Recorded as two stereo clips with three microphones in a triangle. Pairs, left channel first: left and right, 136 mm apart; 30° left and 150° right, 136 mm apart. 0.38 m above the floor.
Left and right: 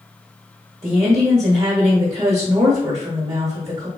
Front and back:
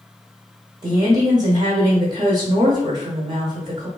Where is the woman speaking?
125° right, 1.3 m.